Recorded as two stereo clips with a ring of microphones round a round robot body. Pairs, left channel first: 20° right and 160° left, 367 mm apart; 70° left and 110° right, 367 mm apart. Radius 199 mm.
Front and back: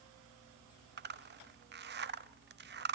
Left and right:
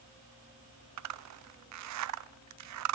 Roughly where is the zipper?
Behind right.